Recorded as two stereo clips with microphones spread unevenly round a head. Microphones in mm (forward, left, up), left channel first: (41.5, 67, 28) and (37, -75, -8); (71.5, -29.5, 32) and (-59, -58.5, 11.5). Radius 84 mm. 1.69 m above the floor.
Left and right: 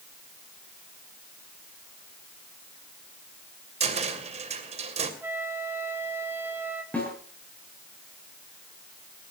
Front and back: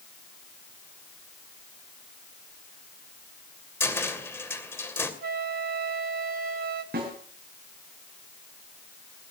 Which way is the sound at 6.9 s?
165° left.